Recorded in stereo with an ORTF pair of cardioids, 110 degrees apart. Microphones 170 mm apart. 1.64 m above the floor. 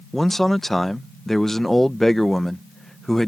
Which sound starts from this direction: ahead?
A man speaking, at 0.1 s.